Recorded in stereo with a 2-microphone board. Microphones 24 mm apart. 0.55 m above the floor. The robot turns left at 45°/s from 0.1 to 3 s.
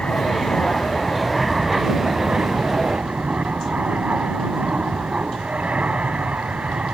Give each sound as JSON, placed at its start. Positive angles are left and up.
{"t": 0.0, "sound": "an aircraft", "azimuth_deg": 60}